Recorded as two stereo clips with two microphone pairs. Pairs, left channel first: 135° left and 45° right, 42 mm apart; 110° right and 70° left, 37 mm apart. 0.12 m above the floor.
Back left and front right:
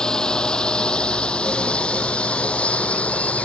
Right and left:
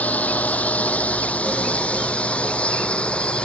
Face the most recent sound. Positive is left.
turn(degrees=-170)